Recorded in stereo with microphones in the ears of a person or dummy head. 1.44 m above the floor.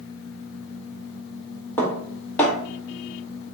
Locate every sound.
1.8 s dishes clattering: 10° left (ahead or behind), 1.4 m